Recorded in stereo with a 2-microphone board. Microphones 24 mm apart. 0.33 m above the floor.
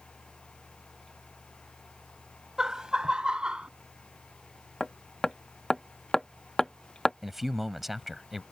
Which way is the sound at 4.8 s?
15° left (ahead or behind).